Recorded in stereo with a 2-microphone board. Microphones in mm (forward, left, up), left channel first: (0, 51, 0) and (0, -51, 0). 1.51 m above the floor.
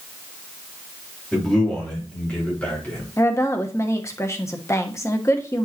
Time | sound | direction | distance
1.3 | a man speaking | 5° left (ahead or behind) | 3.5 m
3.2 | a woman speaking | 30° left (ahead or behind) | 1.1 m